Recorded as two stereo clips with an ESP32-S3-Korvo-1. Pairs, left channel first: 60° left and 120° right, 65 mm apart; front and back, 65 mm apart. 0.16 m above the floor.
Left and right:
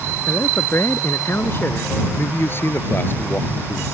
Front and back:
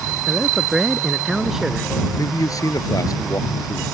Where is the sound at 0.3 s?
100° left.